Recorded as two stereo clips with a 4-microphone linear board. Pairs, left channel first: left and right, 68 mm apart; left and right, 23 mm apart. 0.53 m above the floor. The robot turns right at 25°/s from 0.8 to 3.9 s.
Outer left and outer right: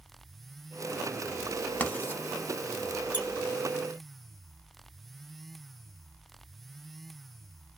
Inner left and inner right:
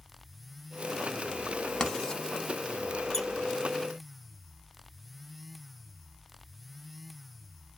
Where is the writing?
25° left (ahead or behind), 0.7 m; by 2.2 s 35° left (ahead or behind), 0.7 m.